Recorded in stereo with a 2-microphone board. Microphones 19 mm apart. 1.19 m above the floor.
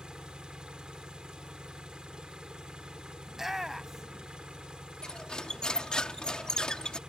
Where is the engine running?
50° right (ahead or behind).